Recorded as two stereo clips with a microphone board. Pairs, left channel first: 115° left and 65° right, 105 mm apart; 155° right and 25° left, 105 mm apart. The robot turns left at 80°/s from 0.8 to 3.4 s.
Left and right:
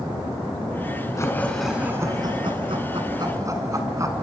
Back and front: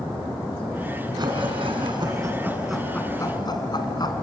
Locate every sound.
1.2 s laughter: 60° left, 2.5 m; by 4.1 s 120° right, 2.5 m